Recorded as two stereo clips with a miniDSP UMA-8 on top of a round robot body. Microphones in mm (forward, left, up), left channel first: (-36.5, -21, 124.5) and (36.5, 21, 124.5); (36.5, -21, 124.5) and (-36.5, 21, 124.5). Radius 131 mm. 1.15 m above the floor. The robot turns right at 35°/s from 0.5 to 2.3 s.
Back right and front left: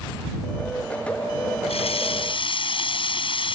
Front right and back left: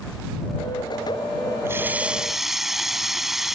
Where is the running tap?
145° right; by 3.5 s 125° right.